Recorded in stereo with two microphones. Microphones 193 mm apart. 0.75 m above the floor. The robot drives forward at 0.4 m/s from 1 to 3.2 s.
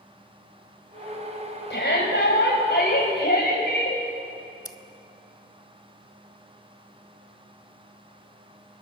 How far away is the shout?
About 3.5 m.